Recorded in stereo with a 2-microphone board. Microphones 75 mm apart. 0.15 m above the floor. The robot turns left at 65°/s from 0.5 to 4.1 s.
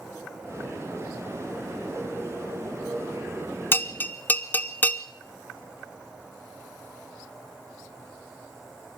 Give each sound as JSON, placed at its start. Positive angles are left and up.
{"t": 3.7, "sound": "a bell", "side_deg": 35, "distance_m": 0.7}